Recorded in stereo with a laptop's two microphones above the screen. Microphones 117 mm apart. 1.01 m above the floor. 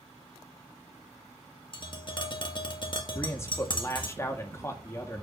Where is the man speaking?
25° left (ahead or behind), 1.9 m.